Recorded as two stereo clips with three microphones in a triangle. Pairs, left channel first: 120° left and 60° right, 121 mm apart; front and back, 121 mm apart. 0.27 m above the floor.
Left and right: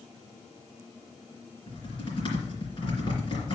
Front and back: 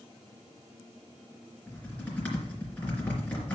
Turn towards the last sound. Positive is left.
turn(degrees=75)